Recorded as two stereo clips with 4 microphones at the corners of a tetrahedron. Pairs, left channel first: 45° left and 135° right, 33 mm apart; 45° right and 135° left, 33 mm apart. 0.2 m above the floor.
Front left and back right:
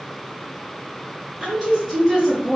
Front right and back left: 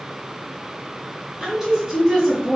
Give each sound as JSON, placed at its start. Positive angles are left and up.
{"t": 1.4, "sound": "a woman speaking", "azimuth_deg": -155, "distance_m": 1.7}